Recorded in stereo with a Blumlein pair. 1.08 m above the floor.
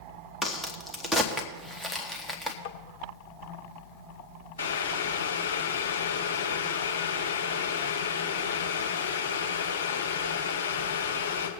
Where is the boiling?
60° left, 2 m.